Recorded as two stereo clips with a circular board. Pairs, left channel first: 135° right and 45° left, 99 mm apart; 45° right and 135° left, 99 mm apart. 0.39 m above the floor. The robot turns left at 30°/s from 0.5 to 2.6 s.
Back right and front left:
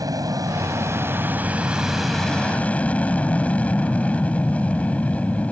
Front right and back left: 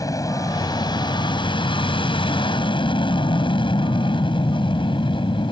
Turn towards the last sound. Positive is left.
turn(degrees=-60)